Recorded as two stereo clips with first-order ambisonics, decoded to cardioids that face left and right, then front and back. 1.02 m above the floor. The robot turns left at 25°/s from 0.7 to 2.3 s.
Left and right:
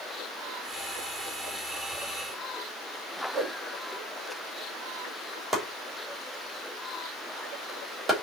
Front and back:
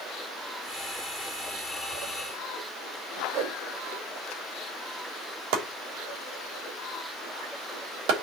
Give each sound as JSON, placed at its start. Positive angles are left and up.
{"t": 3.3, "sound": "a whoosh", "azimuth_deg": -150, "distance_m": 1.1}
{"t": 5.5, "sound": "chopping", "azimuth_deg": -170, "distance_m": 3.0}